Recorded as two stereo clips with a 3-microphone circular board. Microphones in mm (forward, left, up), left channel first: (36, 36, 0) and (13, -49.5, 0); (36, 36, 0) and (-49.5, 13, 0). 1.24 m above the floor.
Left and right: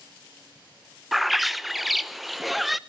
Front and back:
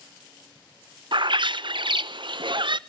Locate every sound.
1.1 s a bird: 165° left, 0.6 m